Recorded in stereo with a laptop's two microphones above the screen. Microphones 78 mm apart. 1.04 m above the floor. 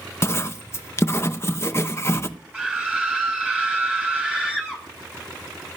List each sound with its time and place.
0.2 s writing: 35° left (ahead or behind), 0.7 m
2.5 s a scream: 15° right (ahead or behind), 5 m